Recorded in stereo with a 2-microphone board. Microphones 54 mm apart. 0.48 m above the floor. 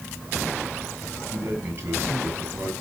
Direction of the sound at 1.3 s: 40° right (ahead or behind).